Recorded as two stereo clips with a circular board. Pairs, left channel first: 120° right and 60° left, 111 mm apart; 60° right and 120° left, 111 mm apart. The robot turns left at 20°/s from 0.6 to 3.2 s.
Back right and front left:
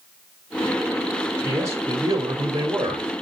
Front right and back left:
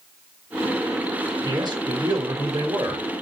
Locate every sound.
1.4 s a man speaking: 115° left, 1.6 m; by 3.0 s 80° left, 1.6 m